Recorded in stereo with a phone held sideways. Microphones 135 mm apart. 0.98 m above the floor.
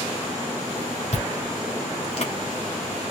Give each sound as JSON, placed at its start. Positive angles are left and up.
{"t": 1.1, "sound": "chewing", "side_deg": 60, "distance_m": 2.5}